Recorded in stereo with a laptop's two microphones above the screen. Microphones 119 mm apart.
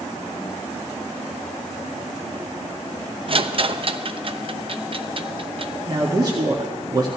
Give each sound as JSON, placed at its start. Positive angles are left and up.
{"t": 3.3, "sound": "a rattle", "side_deg": -45, "distance_m": 0.6}
{"t": 5.9, "sound": "a man speaking", "side_deg": -35, "distance_m": 1.9}